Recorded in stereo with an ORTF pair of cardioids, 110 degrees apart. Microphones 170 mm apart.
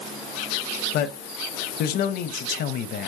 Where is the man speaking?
65° left, 0.8 m.